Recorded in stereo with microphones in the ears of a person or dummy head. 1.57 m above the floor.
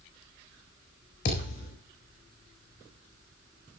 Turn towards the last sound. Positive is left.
turn(degrees=55)  # may be behind; listen again after turning